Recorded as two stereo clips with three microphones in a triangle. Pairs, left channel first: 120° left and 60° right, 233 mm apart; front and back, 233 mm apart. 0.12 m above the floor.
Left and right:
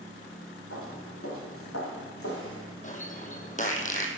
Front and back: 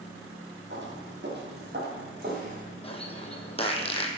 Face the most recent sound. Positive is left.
turn(degrees=65)